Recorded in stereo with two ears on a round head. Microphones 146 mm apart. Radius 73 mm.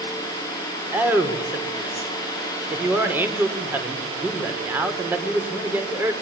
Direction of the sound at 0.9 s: 15° right (ahead or behind).